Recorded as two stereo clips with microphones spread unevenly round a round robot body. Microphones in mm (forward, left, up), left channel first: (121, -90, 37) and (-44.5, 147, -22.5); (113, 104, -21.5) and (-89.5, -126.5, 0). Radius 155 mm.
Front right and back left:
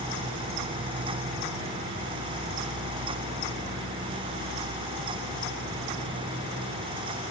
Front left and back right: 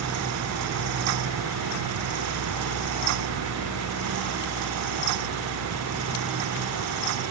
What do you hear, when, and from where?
Only background noise.